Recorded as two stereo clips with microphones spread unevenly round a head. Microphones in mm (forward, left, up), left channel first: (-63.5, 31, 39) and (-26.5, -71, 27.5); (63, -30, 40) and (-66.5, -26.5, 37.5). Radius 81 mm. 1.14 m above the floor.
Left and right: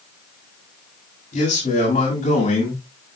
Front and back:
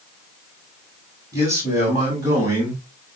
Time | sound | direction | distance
1.3 | a man speaking | 110° left | 7 m